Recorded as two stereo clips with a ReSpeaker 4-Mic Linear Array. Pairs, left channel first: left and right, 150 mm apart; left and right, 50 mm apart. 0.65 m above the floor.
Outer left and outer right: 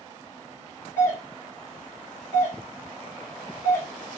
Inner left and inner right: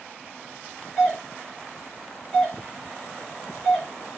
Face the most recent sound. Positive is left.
turn(degrees=15)  # may be behind; listen again after turning